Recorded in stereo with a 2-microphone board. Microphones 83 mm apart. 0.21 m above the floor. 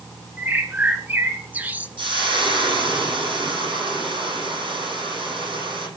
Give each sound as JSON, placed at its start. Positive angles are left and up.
{"t": 0.4, "sound": "a bird", "side_deg": -20, "distance_m": 1.7}
{"t": 2.0, "sound": "frying", "side_deg": -70, "distance_m": 8.0}